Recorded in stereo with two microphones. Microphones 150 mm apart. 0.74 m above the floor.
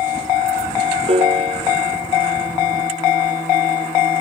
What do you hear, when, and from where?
1.1 s a piano: 40° right (ahead or behind)